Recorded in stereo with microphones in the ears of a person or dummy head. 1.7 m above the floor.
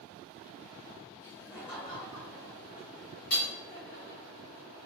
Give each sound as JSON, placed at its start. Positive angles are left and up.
{"t": 1.2, "sound": "laughter", "side_deg": 15, "distance_m": 2.0}
{"t": 3.3, "sound": "hammering", "side_deg": 50, "distance_m": 2.0}